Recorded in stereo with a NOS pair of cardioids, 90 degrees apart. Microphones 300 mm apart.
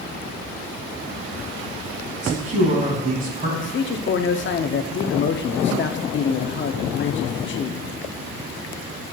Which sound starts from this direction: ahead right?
A man speaking, at 2.2 s.